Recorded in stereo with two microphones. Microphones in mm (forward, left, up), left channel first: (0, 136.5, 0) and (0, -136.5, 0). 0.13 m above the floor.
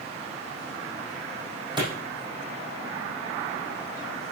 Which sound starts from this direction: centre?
A clap, at 1.8 s.